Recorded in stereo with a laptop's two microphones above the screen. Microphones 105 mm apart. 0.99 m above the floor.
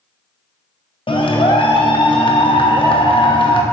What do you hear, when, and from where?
1.1 s a clap: 55° left (ahead or behind), 0.8 m